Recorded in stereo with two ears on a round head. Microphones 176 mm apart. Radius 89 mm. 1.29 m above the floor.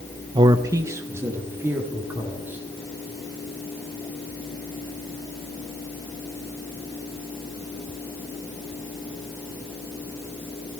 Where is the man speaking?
25° right (ahead or behind), 0.6 m; by 2.6 s 10° right (ahead or behind), 3.5 m.